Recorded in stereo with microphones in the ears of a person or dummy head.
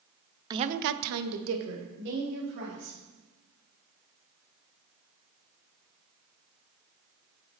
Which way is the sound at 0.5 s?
20° right (ahead or behind).